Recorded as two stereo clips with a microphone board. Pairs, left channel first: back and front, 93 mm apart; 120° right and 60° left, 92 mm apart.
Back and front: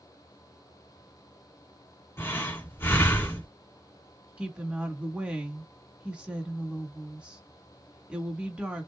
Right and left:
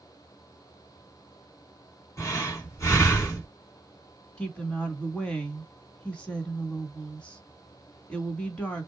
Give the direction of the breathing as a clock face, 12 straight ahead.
5 o'clock.